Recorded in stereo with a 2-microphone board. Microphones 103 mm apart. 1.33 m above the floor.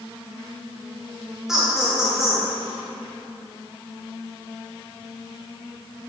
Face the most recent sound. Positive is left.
turn(degrees=-5)  # may be behind; listen again after turning